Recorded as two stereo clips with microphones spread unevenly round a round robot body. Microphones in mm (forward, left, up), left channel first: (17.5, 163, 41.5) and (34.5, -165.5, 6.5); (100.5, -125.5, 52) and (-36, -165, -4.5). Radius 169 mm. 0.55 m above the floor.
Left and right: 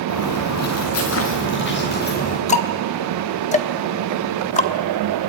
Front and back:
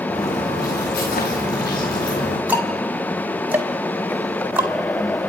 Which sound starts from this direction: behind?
Ticking, at 2.5 s.